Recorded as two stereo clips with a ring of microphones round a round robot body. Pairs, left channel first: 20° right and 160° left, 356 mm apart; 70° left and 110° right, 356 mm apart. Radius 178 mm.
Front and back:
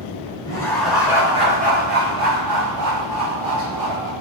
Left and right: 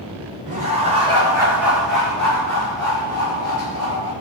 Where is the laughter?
85° right, 1.0 m; by 4.1 s 140° left, 1.8 m.